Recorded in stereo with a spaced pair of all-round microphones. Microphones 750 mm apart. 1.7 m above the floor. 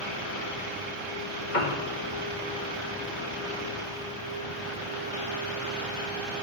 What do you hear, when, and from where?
1.5 s a piano: 75° left (ahead or behind), 2.5 m